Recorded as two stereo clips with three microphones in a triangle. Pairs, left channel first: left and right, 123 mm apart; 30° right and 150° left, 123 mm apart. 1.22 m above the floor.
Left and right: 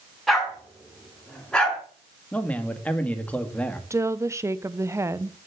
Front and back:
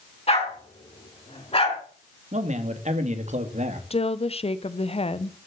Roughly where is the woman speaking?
Ahead right.